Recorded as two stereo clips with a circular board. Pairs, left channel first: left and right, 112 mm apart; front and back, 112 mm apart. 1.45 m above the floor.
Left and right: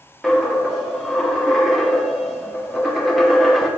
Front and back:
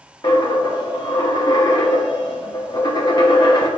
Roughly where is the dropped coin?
Ahead.